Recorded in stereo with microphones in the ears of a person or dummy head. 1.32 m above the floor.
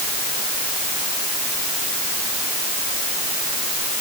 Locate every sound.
Only background noise.